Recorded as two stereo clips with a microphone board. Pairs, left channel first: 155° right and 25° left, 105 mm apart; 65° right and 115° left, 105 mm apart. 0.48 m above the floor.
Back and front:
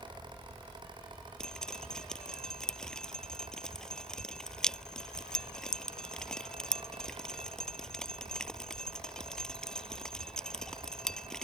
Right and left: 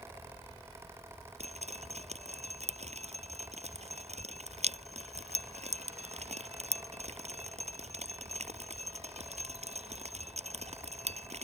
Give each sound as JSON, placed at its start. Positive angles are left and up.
{"t": 1.4, "sound": "dripping", "azimuth_deg": 120}